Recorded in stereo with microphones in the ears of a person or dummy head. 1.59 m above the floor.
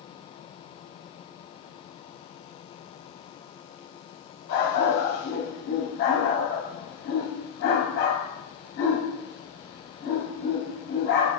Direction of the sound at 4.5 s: 60° left (ahead or behind).